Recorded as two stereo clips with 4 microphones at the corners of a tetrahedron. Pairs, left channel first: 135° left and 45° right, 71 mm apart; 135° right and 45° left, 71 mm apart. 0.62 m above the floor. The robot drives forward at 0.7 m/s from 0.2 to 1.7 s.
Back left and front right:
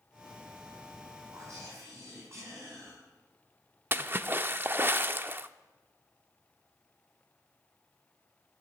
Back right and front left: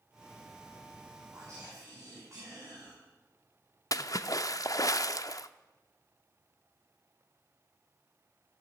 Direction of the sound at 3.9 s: 105° right.